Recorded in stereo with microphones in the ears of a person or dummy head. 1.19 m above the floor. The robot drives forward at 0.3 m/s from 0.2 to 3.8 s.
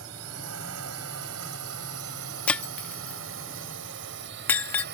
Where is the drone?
80° right; by 5.0 s 55° right (ahead or behind).